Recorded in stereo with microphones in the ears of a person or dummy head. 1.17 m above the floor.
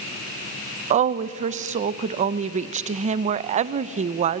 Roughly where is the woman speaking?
Right.